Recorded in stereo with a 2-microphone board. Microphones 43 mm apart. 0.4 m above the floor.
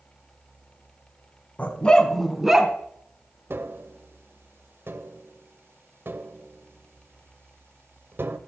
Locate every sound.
1.6 s a dog barking: 40° left (ahead or behind), 1.1 m; by 2.7 s 15° right (ahead or behind), 1.4 m
3.5 s tapping: 65° right (ahead or behind), 0.8 m